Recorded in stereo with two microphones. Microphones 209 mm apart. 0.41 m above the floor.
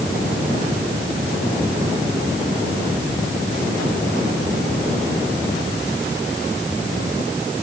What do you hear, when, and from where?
Only background noise.